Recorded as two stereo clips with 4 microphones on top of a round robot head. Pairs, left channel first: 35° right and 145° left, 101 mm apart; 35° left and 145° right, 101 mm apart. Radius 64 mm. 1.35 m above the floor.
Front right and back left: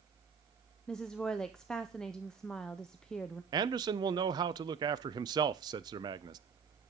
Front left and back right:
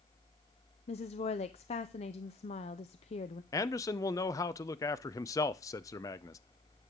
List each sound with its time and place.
0.9 s a woman speaking: 50° left, 0.6 m
3.5 s a man speaking: 95° left, 0.7 m